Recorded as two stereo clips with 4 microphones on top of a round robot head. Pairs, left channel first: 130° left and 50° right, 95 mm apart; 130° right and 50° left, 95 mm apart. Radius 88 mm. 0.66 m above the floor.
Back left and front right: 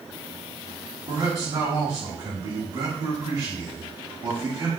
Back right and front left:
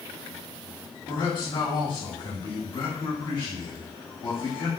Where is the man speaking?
80° right, 1.6 m.